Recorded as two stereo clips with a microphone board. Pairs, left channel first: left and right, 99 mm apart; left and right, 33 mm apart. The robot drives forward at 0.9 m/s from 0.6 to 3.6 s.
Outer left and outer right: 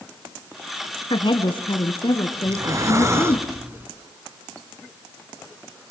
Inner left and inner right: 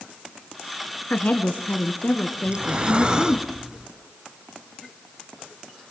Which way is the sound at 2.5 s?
30° right (ahead or behind).